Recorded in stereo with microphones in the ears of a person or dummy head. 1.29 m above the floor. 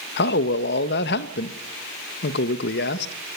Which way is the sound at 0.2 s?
65° left (ahead or behind).